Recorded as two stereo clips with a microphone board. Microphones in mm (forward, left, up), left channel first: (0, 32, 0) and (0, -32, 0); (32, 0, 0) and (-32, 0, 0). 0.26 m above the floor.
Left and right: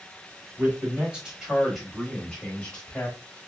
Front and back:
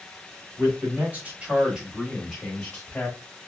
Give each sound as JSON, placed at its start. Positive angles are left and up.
{"t": 0.6, "sound": "a man speaking", "azimuth_deg": -150, "distance_m": 1.3}